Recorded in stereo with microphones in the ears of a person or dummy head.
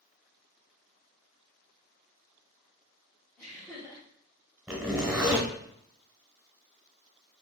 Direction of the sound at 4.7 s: 5° right (ahead or behind).